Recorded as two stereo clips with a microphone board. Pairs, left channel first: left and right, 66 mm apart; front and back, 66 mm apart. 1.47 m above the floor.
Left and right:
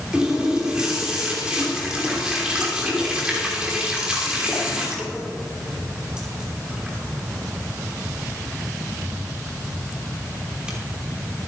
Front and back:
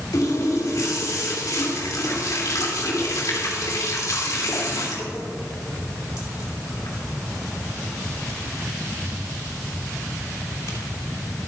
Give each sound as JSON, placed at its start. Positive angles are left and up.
{"t": 0.1, "sound": "a running tap", "azimuth_deg": -15, "distance_m": 3.0}